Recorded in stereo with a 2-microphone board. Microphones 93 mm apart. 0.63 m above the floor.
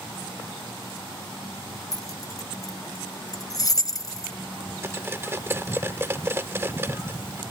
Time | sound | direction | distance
1.9 | keys jangling | 40° left (ahead or behind) | ?
4.8 | cutlery clinking | 25° right (ahead or behind) | ?